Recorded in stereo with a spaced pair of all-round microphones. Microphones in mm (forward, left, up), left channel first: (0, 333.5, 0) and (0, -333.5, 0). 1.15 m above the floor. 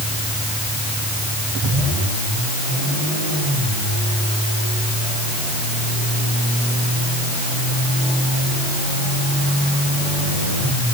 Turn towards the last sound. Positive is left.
No sound to turn to.